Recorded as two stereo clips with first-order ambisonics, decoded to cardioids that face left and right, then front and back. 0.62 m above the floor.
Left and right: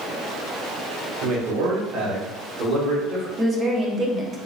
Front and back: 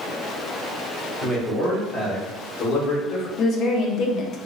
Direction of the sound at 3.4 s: 30° right.